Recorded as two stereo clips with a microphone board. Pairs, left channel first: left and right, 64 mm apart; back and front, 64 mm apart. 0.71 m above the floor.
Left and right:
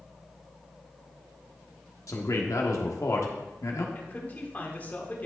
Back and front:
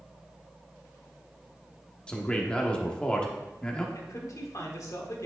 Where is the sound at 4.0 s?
150° left, 1.6 m.